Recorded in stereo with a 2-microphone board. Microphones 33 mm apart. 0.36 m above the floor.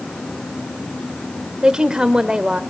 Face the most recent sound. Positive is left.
turn(degrees=-30)  # may be behind; listen again after turning